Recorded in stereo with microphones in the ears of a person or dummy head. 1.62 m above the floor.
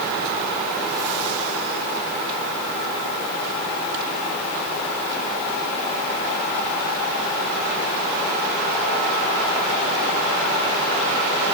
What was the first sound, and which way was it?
Only background noise.